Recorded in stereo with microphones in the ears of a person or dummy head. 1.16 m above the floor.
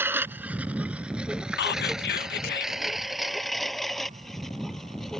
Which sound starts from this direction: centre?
A lawn mower, at 0.0 s.